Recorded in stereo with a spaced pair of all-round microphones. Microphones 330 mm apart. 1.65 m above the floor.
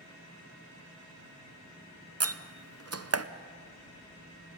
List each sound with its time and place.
2.2 s a door slam: 45° right (ahead or behind), 0.7 m